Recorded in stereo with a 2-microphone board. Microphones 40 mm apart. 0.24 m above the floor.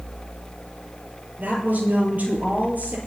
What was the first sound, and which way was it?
A woman speaking, 40° right (ahead or behind).